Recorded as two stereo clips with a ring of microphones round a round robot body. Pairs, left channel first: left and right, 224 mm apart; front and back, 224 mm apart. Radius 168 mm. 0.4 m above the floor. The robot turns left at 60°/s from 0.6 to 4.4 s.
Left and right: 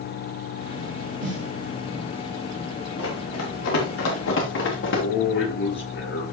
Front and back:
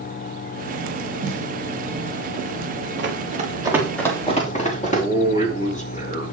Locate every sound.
1.2 s a snare drum: 110° right, 5.5 m; by 1.5 s 130° right, 5.5 m
3.0 s running footsteps: 145° left, 5.5 m; by 5.0 s 60° left, 7 m
4.8 s a man speaking: 55° left, 7.5 m